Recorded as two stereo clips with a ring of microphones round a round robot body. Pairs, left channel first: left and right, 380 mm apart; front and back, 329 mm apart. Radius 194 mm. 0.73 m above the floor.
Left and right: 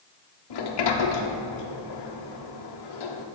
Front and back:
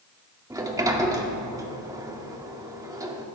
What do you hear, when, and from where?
0.5 s a sliding door: 100° left, 1.7 m